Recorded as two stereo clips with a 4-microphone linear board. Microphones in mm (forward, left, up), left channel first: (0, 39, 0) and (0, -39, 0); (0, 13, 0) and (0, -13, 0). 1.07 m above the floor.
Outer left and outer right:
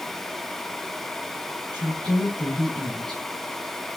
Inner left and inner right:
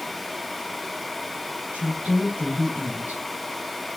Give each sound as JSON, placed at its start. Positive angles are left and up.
{"t": 1.7, "sound": "a woman speaking", "side_deg": -75, "distance_m": 8.0}